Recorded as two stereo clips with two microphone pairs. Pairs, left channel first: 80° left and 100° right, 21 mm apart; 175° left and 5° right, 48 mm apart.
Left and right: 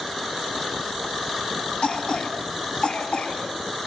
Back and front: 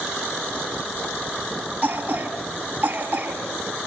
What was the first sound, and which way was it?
A cough, 50° left.